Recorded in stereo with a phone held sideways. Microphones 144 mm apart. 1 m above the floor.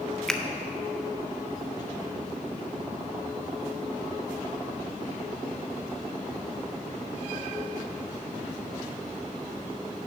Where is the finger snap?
5° left (ahead or behind), 0.6 m.